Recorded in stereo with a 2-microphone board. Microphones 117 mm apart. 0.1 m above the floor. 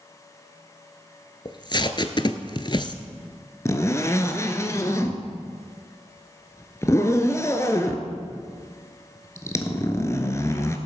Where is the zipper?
25° left (ahead or behind), 1.0 m.